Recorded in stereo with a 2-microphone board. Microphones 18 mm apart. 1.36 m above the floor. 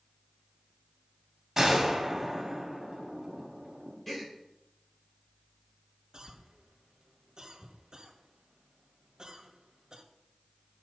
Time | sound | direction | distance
1.6 | a gunshot | 25° right (ahead or behind) | 1.7 m
4.1 | a gasp | 5° left (ahead or behind) | 2.5 m
6.1 | a cough | 50° right (ahead or behind) | 1.4 m